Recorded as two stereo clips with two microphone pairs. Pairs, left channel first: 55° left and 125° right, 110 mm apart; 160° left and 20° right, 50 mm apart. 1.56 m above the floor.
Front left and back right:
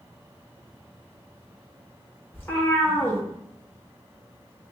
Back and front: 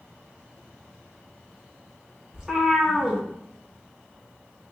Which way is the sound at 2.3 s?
25° left.